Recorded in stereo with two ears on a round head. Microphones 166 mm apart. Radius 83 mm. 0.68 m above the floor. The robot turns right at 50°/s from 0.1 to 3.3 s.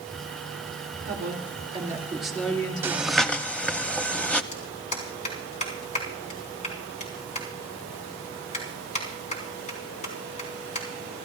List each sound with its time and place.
1.1 s a woman speaking: 60° right, 2.5 m; by 3.5 s 50° left, 2.5 m
2.8 s breathing: 15° right (ahead or behind), 0.7 m; by 4.4 s 5° left (ahead or behind), 0.7 m
4.5 s a clap: 40° left (ahead or behind), 4 m